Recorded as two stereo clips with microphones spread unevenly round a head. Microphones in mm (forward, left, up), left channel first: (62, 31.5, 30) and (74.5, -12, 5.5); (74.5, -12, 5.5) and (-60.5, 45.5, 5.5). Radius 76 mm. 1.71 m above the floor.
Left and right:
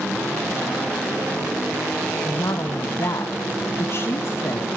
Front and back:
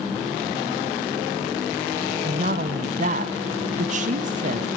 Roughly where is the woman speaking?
Behind left.